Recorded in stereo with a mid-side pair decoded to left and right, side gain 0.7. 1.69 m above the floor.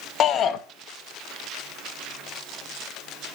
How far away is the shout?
About 1.0 m.